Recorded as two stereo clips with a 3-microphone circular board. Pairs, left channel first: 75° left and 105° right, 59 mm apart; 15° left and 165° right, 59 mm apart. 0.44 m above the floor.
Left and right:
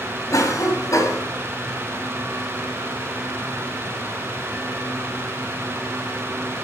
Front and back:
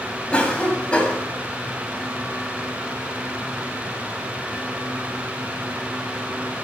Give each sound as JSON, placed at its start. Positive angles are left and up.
{"t": 0.3, "sound": "a cough", "azimuth_deg": 85, "distance_m": 2.5}